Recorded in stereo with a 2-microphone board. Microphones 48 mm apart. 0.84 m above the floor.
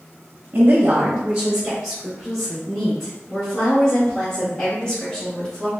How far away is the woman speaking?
About 0.9 m.